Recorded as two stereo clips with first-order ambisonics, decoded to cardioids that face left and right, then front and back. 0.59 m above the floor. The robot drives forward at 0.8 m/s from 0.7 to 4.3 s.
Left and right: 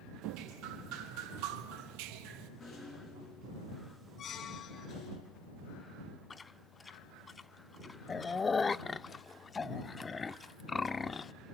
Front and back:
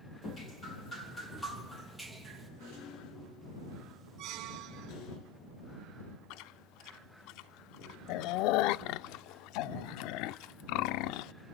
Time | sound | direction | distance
0.2 | dripping | 65° right | 3 m
2.6 | a rattle | 25° left | 7.5 m
4.2 | a squeak | 145° left | 1.3 m
6.3 | chewing | 15° left | 0.5 m